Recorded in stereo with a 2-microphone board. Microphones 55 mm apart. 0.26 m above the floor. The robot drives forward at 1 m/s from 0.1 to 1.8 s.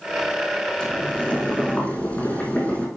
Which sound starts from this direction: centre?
Boiling, at 0.8 s.